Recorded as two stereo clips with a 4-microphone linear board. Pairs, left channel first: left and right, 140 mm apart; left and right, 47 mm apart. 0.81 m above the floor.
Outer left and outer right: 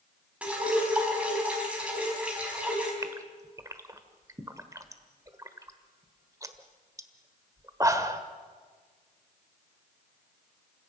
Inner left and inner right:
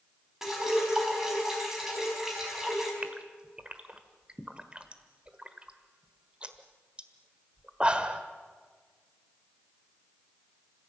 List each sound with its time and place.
0.4 s dripping: 10° right (ahead or behind), 4.5 m
3.0 s a gasp: 25° right (ahead or behind), 1.3 m